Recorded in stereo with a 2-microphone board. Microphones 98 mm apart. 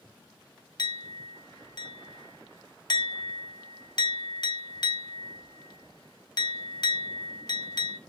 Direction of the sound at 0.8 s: 50° left (ahead or behind).